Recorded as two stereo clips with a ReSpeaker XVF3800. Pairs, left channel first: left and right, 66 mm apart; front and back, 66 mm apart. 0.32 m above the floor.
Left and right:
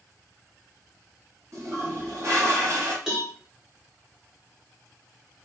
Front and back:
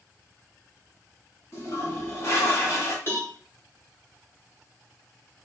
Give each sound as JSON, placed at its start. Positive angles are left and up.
{"t": 1.5, "sound": "a toilet flushing", "azimuth_deg": -50, "distance_m": 2.5}
{"t": 3.1, "sound": "a cowbell", "azimuth_deg": -15, "distance_m": 1.3}